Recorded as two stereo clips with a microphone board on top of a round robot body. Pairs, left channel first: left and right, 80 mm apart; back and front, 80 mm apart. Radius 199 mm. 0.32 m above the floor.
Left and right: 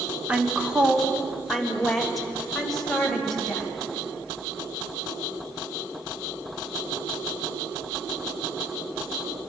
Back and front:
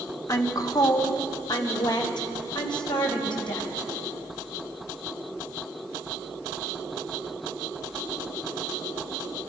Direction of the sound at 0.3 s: 160° right.